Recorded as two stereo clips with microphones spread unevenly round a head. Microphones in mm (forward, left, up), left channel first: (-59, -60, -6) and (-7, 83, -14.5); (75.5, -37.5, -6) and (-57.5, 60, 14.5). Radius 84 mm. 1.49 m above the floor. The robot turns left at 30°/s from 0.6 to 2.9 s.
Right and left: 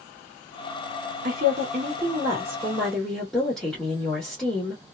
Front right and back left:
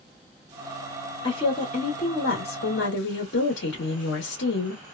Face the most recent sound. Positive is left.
turn(degrees=-25)